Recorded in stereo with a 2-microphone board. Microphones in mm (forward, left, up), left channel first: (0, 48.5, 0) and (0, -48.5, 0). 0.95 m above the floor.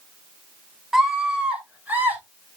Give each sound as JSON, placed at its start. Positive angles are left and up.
{"t": 0.9, "sound": "a scream", "side_deg": -5, "distance_m": 3.0}